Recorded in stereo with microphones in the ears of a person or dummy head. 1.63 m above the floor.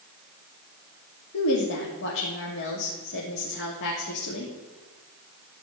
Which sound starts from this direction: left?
A woman speaking, at 1.3 s.